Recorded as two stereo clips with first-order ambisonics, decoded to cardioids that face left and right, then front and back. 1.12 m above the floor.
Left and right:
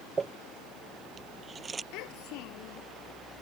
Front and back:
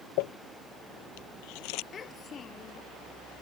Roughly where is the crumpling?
Ahead.